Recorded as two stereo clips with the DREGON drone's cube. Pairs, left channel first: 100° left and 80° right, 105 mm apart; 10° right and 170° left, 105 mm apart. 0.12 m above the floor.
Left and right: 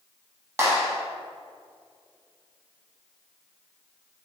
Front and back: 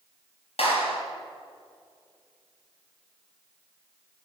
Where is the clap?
15° right, 4 m.